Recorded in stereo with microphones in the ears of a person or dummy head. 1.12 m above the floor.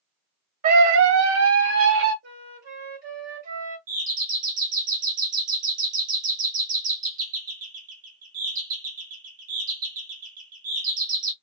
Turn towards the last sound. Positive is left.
turn(degrees=-40)  # may be behind; listen again after turning